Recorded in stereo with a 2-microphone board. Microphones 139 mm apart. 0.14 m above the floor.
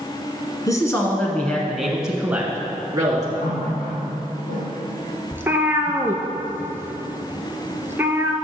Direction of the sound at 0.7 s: 25° left (ahead or behind).